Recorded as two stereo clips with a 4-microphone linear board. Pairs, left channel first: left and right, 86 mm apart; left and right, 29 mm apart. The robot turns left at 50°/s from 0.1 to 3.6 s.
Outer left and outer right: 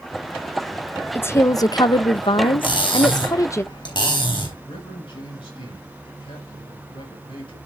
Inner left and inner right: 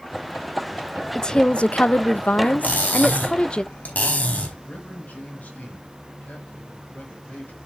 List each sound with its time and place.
1.1 s a woman speaking: 155° left, 0.6 m; by 3.6 s 35° left, 0.6 m
2.6 s cutlery clinking: 115° left, 3.5 m; by 4.5 s 65° left, 3.5 m
4.7 s a man speaking: 80° left, 6 m